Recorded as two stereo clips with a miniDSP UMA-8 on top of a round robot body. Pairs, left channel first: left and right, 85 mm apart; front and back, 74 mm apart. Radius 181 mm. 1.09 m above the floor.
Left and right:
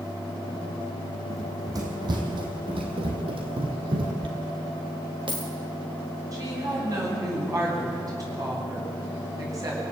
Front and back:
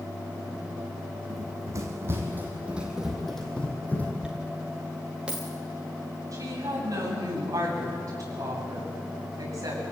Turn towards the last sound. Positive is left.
turn(degrees=-140)